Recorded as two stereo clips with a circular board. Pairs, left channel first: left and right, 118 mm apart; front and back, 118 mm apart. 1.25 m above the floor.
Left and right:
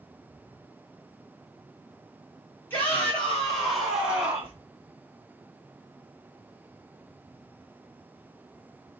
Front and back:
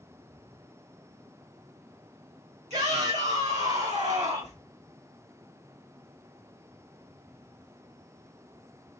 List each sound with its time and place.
2.7 s a shout: 165° left, 2 m; by 4.5 s 165° right, 2.5 m